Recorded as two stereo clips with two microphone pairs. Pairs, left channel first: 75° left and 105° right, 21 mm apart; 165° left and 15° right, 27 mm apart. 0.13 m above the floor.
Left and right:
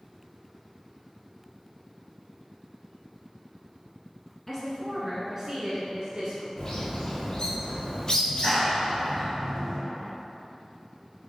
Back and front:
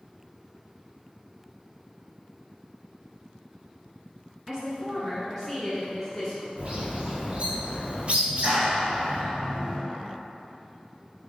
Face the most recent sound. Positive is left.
turn(degrees=10)